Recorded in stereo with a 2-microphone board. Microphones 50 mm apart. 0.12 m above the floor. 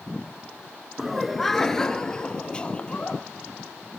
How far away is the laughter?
About 1.1 m.